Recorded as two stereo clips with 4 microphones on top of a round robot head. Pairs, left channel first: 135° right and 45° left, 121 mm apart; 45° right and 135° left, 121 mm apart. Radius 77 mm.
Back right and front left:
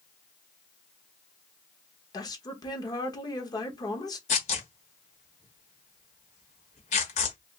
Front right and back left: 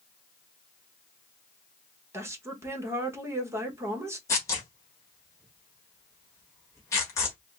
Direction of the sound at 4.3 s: 110° right.